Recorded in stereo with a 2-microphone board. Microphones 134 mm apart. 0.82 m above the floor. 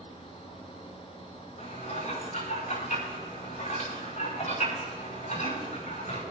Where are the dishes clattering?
85° left, 6.5 m.